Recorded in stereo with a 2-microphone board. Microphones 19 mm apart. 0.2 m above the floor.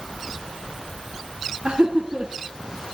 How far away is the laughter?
About 2 m.